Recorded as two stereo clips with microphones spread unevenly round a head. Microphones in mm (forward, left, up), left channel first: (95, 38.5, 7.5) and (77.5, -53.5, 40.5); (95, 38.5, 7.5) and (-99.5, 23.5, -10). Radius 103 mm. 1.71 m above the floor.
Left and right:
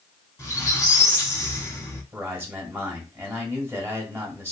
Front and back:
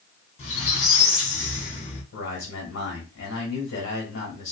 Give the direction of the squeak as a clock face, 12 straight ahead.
12 o'clock.